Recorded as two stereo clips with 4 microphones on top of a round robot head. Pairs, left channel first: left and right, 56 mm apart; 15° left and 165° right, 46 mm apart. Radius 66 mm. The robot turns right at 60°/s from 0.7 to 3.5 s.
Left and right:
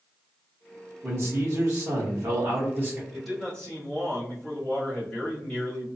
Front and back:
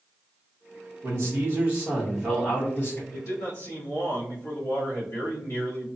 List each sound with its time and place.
1.0 s a man speaking: 140° right, 1.3 m; by 3.0 s 25° right, 1.3 m
3.1 s a man speaking: 5° right, 1.6 m; by 5.9 s 20° left, 1.6 m